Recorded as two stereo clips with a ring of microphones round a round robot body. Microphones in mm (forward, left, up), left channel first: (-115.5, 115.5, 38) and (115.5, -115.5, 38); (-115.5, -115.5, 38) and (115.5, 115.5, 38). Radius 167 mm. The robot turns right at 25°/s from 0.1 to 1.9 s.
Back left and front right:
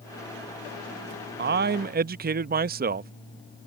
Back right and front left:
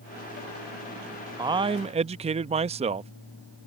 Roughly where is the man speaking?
Ahead right.